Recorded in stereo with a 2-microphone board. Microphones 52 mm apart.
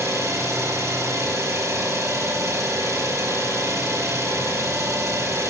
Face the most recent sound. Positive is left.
turn(degrees=-75)  # may be behind; listen again after turning